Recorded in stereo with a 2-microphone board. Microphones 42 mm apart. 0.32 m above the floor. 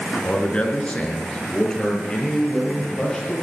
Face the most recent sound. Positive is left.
turn(degrees=15)  # may be behind; listen again after turning